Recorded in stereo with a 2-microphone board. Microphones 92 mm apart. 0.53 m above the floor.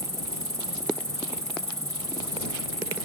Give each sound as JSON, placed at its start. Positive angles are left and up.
{"t": 0.0, "sound": "an insect", "side_deg": -35}